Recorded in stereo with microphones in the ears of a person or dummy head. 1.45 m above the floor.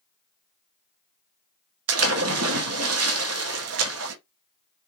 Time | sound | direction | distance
1.9 | a splash | 70° right (ahead or behind) | 0.7 m